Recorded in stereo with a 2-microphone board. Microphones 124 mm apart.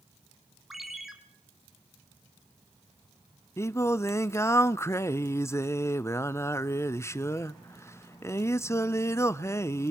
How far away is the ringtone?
About 2.5 m.